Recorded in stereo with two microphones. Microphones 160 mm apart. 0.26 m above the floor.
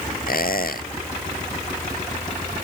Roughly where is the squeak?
Left.